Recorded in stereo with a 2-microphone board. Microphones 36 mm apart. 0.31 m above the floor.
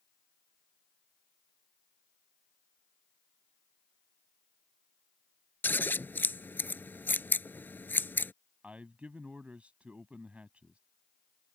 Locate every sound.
5.6 s scissors: 80° left
8.6 s a man speaking: 40° right (ahead or behind)